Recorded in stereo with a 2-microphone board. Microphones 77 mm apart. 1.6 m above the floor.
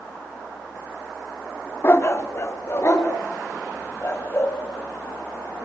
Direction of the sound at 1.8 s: 35° left (ahead or behind).